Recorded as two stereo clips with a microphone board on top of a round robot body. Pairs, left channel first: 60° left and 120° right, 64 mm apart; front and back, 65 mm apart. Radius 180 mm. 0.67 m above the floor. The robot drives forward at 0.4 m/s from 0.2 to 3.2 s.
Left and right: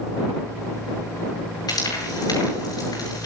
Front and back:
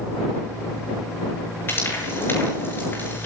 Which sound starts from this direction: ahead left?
Frying, at 1.7 s.